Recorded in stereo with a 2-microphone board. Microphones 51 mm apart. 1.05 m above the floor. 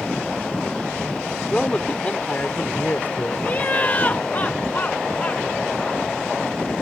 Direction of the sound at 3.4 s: 35° left (ahead or behind).